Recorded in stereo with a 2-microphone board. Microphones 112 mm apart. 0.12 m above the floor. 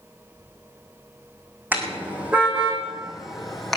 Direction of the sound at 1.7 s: 15° right (ahead or behind).